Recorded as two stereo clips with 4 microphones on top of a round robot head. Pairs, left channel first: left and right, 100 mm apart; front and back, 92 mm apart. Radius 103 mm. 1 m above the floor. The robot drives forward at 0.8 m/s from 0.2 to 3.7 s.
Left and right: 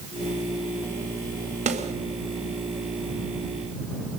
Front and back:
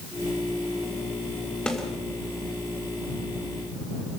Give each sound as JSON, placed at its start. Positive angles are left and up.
{"t": 1.7, "sound": "a snare drum", "azimuth_deg": -85, "distance_m": 2.0}